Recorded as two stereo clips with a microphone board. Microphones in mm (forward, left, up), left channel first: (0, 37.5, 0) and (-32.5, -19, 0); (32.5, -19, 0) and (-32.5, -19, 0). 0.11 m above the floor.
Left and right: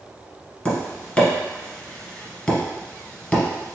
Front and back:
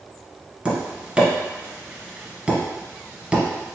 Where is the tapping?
125° left, 1.4 m.